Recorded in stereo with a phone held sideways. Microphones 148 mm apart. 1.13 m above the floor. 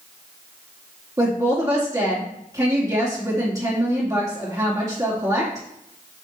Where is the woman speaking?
25° right (ahead or behind), 2.5 m.